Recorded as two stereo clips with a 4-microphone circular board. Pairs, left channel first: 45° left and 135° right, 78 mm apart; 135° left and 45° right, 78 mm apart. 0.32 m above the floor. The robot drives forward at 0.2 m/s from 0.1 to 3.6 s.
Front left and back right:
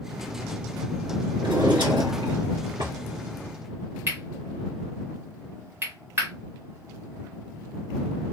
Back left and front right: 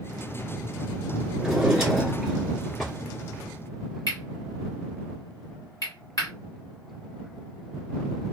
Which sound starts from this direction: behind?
Cutlery clinking, at 4.1 s.